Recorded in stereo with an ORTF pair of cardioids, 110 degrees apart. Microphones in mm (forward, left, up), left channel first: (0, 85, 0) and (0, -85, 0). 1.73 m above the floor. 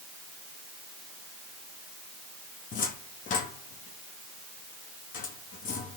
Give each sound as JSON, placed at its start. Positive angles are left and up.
{"t": 2.7, "sound": "a cupboard door", "azimuth_deg": 55, "distance_m": 4.0}